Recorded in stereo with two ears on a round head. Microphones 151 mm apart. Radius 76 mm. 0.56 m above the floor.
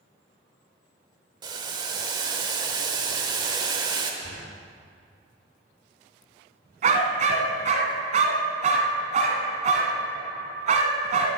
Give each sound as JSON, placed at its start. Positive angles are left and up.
{"t": 1.4, "sound": "boiling", "side_deg": -25, "distance_m": 1.1}
{"t": 4.2, "sound": "knocking", "side_deg": 60, "distance_m": 4.0}
{"t": 6.8, "sound": "a dog barking", "side_deg": -45, "distance_m": 2.0}